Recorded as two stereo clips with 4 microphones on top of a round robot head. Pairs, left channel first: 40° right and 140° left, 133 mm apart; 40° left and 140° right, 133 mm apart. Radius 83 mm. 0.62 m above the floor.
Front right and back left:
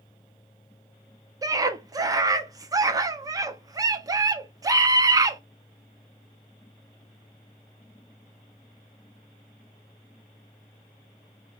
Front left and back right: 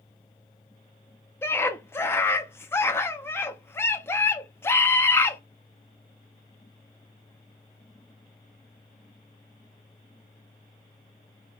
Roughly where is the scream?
Left.